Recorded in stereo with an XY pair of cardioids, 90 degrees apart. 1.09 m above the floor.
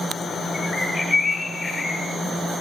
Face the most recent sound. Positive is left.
turn(degrees=40)